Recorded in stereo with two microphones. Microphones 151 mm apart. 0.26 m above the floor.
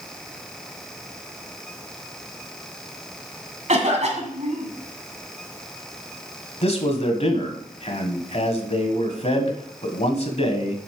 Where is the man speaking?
45° left (ahead or behind), 1.5 m.